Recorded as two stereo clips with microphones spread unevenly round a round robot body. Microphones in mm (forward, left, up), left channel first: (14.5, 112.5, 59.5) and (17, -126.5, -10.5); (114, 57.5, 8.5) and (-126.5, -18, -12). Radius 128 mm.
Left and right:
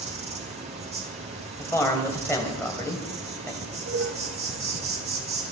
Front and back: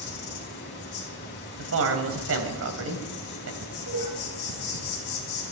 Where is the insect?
35° right, 4 m.